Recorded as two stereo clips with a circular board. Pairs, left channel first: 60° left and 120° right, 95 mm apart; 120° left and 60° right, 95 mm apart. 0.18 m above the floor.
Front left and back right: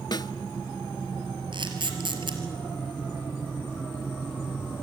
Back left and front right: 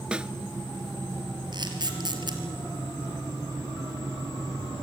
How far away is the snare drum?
About 0.6 m.